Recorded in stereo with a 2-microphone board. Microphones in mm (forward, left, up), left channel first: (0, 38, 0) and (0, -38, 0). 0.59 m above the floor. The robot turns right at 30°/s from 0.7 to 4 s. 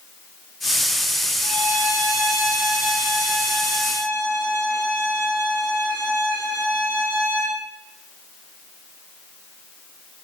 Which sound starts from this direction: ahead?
A violin, at 1.4 s.